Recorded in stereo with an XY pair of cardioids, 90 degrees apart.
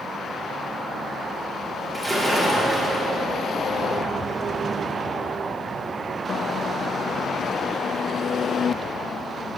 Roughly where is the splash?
Ahead right.